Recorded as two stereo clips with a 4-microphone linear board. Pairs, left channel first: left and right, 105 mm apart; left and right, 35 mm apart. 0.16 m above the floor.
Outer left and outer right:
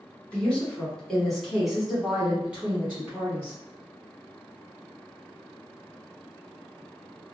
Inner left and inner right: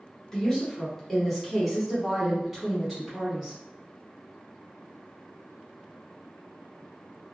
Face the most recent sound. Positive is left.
turn(degrees=-15)  # may be behind; listen again after turning